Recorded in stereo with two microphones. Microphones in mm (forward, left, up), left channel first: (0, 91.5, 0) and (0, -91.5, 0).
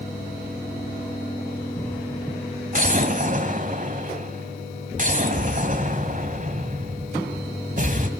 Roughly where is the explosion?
Right.